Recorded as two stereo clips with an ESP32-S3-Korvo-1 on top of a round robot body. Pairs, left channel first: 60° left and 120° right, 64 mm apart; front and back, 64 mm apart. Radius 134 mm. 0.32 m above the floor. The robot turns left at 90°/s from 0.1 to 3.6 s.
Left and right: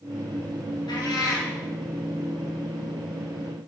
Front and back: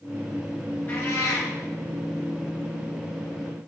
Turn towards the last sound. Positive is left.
turn(degrees=175)